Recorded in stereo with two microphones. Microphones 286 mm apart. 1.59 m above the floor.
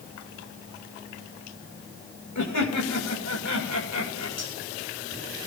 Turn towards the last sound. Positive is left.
turn(degrees=65)  # may be behind; listen again after turning